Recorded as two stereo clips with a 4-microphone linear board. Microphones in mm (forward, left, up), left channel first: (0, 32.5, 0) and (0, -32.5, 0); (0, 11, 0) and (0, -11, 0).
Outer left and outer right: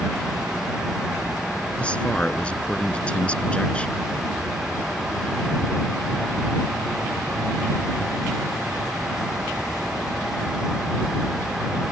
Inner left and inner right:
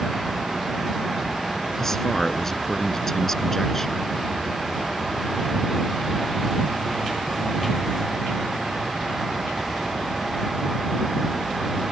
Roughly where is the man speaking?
Centre.